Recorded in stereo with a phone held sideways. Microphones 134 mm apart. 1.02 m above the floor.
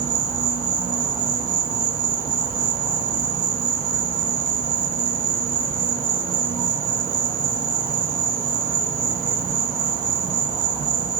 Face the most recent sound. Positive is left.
turn(degrees=-35)  # may be behind; listen again after turning